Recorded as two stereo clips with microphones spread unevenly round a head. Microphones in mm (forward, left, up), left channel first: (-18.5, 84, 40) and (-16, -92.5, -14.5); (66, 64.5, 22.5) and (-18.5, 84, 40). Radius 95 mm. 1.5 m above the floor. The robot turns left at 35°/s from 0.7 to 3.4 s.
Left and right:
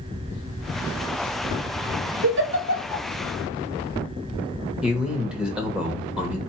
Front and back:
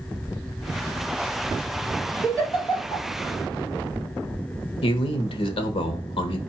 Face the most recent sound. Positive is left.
turn(degrees=0)